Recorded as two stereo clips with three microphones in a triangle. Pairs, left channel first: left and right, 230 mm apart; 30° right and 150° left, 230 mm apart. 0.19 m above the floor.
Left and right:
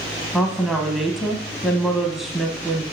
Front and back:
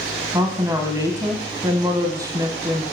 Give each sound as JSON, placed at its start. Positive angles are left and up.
{"t": 0.3, "sound": "a woman speaking", "azimuth_deg": -175, "distance_m": 1.0}